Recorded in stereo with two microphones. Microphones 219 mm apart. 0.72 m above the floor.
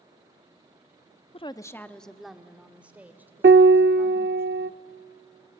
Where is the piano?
55° right (ahead or behind), 0.5 m.